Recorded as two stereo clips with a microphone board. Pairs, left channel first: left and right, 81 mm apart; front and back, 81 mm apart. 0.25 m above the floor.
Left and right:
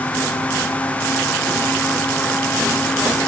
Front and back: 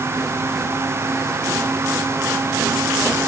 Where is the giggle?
I don't hear a giggle.